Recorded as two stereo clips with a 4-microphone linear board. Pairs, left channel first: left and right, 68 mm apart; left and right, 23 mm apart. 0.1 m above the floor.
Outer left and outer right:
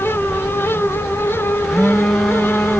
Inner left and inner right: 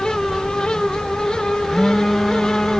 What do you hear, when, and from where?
1.6 s a phone buzzing: centre (ahead or behind)